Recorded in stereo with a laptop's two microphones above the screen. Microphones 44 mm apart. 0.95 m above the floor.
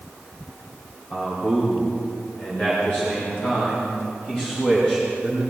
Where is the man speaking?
55° left (ahead or behind), 4.5 m; by 5.4 s 35° left (ahead or behind), 7 m.